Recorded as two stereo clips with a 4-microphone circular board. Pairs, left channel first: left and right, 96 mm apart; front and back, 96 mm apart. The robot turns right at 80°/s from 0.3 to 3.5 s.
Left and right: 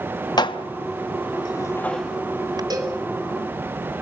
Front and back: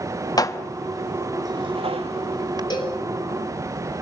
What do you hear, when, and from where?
0.4 s dishes clattering: 45° left, 1.0 m; by 2.6 s 135° right, 1.0 m
2.7 s a cowbell: 45° right, 3 m; by 3.0 s 20° right, 3 m